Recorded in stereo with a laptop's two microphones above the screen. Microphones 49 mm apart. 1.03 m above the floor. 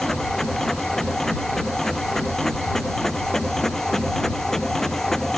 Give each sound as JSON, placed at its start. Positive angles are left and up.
{"t": 0.0, "sound": "a machine running", "side_deg": 10}